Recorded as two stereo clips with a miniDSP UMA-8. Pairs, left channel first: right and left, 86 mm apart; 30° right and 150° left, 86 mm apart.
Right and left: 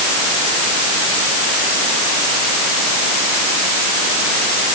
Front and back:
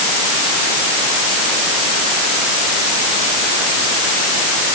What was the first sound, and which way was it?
Only background noise.